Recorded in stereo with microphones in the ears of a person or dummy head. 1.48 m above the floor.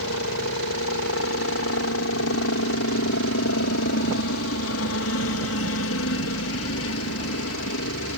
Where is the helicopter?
60° left (ahead or behind).